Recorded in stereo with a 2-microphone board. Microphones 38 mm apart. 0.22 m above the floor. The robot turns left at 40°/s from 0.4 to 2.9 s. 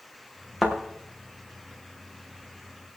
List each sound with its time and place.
0.6 s a thud: 5° left (ahead or behind), 4.5 m; by 0.8 s 5° right (ahead or behind), 4.5 m